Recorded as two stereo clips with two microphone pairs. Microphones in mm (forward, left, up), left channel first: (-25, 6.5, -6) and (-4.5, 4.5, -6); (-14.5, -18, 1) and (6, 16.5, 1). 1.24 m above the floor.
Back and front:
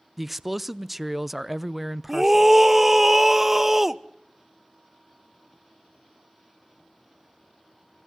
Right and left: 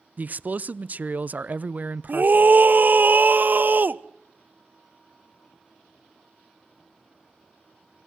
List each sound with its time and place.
0.2 s a man speaking: 75° left, 0.6 m
2.1 s a scream: 65° left, 0.9 m